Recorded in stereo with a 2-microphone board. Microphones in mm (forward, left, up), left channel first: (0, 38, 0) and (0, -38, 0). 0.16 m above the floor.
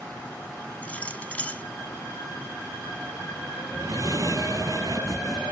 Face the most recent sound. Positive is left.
turn(degrees=-50)  # may be behind; listen again after turning